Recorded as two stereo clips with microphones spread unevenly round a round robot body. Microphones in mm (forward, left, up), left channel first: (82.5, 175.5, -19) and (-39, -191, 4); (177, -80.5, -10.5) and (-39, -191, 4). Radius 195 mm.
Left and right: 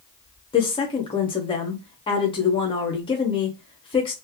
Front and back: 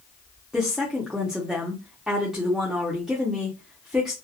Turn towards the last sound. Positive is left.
turn(degrees=115)